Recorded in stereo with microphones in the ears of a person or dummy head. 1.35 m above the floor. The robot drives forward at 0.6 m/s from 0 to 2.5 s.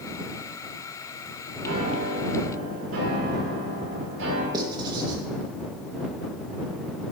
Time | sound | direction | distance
1.6 | a piano | 70° right (ahead or behind) | 4 m
4.5 | writing | 25° right (ahead or behind) | 1.8 m